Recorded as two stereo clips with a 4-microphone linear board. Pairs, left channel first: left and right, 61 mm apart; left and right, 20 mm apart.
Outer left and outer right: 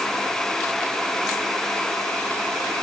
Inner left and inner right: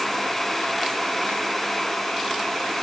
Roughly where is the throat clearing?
No throat clearing in this recording.